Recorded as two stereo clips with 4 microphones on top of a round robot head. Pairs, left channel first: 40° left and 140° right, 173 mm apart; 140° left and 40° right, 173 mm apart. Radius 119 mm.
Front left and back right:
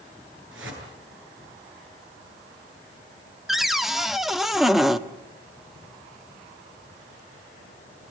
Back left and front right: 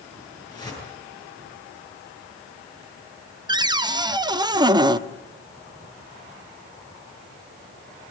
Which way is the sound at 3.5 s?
55° right.